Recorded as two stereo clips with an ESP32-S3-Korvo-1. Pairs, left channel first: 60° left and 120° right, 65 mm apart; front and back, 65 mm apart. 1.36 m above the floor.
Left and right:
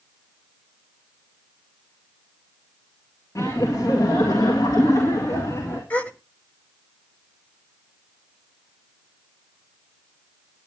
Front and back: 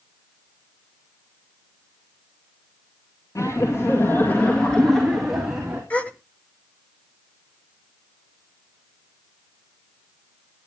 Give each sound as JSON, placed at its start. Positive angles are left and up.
{"t": 3.4, "sound": "laughter", "azimuth_deg": 30, "distance_m": 2.5}
{"t": 5.9, "sound": "a gasp", "azimuth_deg": 40, "distance_m": 1.2}